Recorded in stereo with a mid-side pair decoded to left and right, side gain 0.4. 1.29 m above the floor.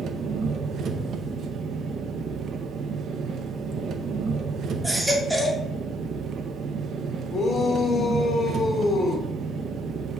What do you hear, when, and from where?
0.0 s an engine running: 70° right, 0.7 m
4.8 s a baby crying: 15° right, 1.7 m
7.3 s a shout: 50° left, 2 m